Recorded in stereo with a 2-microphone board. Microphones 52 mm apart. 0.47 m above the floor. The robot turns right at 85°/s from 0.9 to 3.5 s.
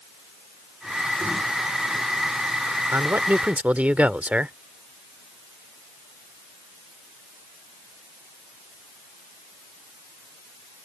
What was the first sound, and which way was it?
A man speaking, 90° right.